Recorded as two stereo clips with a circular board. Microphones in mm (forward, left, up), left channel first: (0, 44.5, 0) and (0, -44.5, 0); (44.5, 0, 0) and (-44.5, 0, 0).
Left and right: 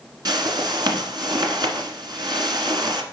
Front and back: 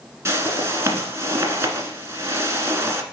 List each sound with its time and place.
0.2 s a whoosh: 125° right, 1.4 m